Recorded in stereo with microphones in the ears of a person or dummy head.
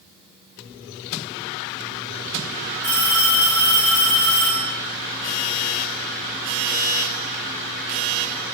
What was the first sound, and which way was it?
A phone ringing, 55° left (ahead or behind).